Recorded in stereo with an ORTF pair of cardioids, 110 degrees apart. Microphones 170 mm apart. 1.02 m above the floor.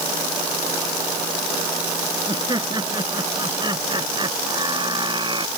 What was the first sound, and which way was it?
Laughter, 25° right.